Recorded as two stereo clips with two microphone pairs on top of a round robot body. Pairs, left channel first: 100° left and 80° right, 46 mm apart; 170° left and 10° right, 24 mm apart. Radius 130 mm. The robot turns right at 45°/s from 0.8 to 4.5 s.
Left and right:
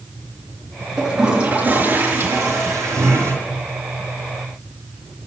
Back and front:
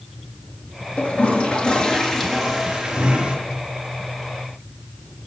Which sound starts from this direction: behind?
A toilet flushing, at 1.0 s.